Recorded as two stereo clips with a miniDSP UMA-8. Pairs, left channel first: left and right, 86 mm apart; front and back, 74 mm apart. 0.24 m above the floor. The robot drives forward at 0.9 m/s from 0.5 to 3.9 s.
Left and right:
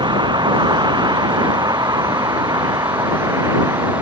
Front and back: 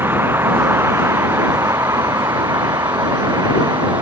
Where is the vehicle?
120° right; by 4.0 s 145° right.